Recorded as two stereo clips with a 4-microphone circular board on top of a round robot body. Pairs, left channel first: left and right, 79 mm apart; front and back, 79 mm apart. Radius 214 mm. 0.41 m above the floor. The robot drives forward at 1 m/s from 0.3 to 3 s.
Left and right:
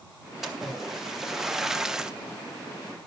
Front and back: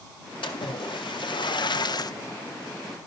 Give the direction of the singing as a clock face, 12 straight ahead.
I don't hear singing.